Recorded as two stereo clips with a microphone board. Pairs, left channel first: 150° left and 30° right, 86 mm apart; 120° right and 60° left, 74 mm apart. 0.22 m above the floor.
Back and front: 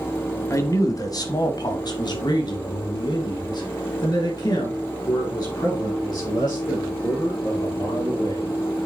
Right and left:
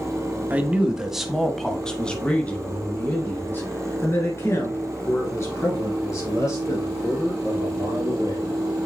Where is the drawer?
I don't hear a drawer.